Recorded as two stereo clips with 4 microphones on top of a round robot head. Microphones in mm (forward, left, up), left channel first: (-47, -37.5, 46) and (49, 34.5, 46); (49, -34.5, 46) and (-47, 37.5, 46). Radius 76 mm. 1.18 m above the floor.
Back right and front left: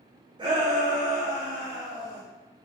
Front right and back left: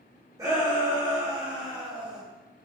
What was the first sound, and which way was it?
A shout, 80° left.